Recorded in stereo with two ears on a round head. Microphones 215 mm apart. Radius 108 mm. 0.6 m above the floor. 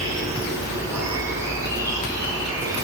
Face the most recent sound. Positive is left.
turn(degrees=-15)  # may be behind; listen again after turning